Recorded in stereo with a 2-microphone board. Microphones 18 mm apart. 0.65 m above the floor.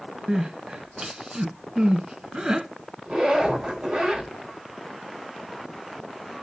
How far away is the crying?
About 1.0 m.